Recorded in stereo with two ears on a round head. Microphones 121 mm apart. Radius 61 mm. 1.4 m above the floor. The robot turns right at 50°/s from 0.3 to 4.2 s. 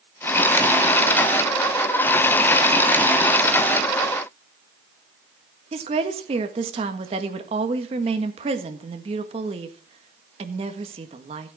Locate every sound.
5.7 s a woman speaking: 45° right (ahead or behind), 1.7 m